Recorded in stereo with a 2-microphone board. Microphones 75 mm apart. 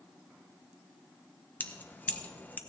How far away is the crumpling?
No crumpling in this recording.